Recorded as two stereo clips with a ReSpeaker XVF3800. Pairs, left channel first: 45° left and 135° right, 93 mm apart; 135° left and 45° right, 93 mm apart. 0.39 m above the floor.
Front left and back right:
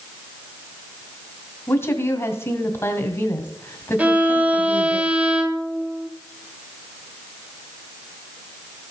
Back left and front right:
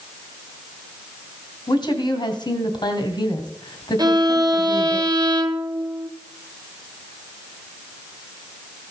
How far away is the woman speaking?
About 2.5 m.